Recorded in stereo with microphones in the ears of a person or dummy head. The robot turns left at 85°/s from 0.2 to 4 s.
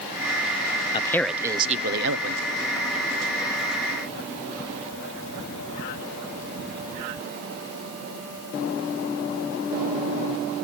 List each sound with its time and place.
0.9 s a man speaking: 30° left, 0.6 m; by 2.4 s 95° right, 0.6 m